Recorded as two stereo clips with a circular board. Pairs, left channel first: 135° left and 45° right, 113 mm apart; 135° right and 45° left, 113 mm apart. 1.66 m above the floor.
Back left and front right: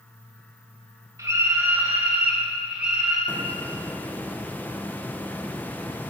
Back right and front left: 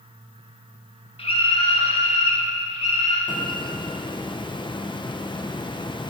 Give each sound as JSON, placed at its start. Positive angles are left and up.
{"t": 1.2, "sound": "a scream", "azimuth_deg": -105, "distance_m": 2.0}
{"t": 3.3, "sound": "a hiss", "azimuth_deg": -155, "distance_m": 0.8}